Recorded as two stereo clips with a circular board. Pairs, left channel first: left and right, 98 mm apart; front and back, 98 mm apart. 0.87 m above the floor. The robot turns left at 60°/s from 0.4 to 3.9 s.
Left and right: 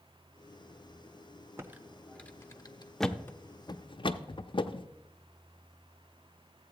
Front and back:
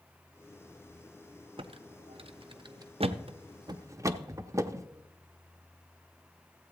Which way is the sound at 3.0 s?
Straight behind.